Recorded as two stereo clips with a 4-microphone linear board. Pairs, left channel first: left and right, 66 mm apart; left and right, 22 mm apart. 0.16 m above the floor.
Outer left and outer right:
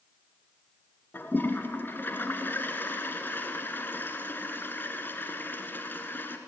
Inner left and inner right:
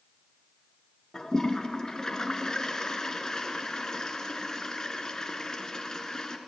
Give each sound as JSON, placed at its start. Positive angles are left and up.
{"t": 1.1, "sound": "a toilet flushing", "side_deg": 35, "distance_m": 1.7}